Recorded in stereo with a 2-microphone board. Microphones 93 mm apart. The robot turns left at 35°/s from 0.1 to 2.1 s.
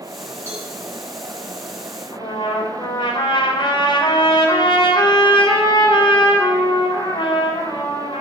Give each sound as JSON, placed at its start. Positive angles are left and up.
{"t": 0.5, "sound": "a cowbell", "side_deg": -25, "distance_m": 5.0}
{"t": 2.1, "sound": "a trumpet", "side_deg": 60, "distance_m": 3.5}